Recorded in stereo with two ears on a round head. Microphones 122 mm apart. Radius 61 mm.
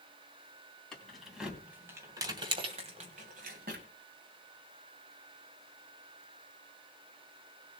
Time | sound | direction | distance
0.9 | keys jangling | 5° left (ahead or behind) | 3 m